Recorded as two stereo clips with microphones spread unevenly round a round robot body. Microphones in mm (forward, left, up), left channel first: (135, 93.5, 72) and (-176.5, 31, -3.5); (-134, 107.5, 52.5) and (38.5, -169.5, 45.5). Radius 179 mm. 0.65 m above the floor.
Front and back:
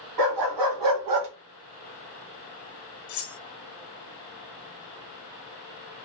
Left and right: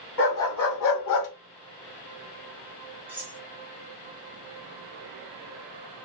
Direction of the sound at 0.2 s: 175° left.